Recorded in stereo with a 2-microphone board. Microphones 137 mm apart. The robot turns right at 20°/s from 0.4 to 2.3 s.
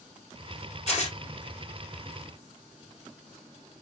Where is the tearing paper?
50° left (ahead or behind), 2.5 m; by 1.2 s 55° left (ahead or behind), 2.5 m.